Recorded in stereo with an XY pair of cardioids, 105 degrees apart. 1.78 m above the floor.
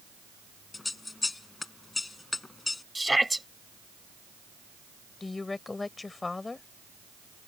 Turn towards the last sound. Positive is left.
turn(degrees=25)